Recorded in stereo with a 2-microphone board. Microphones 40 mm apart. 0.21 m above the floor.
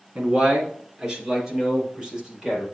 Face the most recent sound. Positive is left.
turn(degrees=-10)  # may be behind; listen again after turning